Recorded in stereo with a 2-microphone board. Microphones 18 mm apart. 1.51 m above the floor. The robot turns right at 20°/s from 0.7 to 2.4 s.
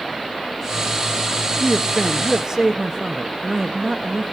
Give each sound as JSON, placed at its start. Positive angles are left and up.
{"t": 1.6, "sound": "a man speaking", "side_deg": -15, "distance_m": 0.9}